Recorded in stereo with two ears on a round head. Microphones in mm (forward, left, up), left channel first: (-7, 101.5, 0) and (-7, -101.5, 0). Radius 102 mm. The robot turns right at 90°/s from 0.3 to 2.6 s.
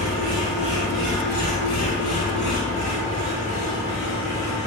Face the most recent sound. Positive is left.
turn(degrees=145)